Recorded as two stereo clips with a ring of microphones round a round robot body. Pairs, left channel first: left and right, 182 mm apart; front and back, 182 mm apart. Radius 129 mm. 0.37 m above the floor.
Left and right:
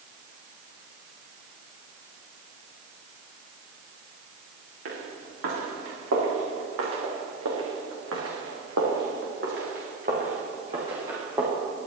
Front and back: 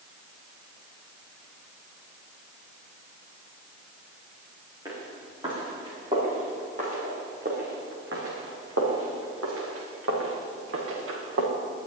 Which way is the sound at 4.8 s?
100° right.